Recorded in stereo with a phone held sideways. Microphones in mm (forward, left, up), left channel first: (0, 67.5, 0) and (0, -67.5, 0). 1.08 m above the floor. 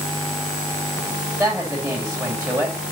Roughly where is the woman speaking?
Right.